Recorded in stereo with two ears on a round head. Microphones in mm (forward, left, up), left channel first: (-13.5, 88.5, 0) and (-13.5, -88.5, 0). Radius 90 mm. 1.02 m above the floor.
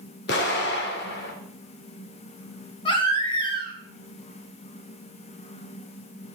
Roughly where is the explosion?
Left.